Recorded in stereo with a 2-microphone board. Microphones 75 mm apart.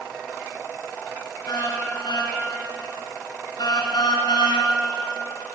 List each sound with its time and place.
1.5 s a car horn: 70° left (ahead or behind), 6.5 m; by 4.7 s 85° left, 3.5 m